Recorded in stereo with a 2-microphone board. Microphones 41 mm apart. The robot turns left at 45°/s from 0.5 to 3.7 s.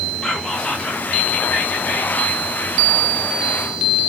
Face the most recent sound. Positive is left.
turn(degrees=15)